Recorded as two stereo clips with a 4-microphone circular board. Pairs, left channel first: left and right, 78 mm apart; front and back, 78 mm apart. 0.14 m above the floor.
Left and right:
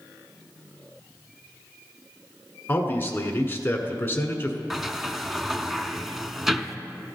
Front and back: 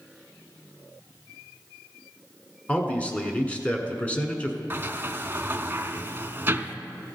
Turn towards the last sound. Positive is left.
turn(degrees=-170)